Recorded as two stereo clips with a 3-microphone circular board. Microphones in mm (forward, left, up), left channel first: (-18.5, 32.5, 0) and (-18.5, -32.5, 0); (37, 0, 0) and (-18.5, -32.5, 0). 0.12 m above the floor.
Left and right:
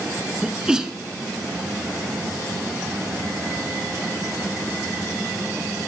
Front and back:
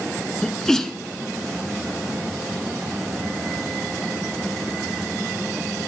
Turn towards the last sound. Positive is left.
turn(degrees=-35)